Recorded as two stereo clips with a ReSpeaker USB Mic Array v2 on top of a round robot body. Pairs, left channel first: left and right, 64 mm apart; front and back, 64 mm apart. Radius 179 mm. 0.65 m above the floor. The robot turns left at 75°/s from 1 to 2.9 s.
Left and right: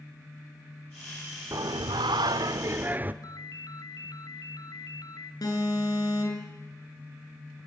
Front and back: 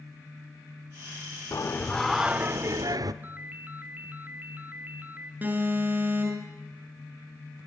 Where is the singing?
45° right, 0.8 m; by 3.1 s 150° right, 0.8 m.